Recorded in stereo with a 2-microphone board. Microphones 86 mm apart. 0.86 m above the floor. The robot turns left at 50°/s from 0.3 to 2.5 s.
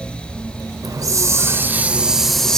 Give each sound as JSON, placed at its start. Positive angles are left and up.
{"t": 0.8, "sound": "a hiss", "azimuth_deg": -105, "distance_m": 0.7}